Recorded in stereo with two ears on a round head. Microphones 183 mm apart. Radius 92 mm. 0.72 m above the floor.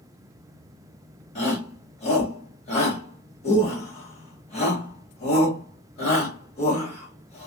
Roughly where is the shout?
Left.